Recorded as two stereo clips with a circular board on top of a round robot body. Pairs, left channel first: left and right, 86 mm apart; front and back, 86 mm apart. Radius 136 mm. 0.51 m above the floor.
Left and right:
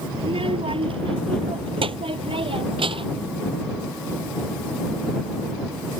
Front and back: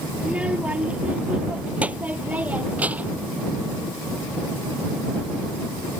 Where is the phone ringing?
I don't hear a phone ringing.